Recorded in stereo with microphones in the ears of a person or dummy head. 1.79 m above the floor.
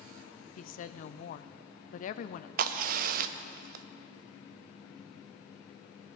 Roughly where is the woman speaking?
Left.